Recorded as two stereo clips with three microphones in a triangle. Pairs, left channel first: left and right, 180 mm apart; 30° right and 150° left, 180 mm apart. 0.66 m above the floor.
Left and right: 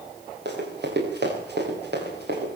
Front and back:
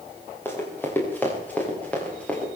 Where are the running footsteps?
110° right, 9 m; by 2.5 s 115° right, 9.5 m.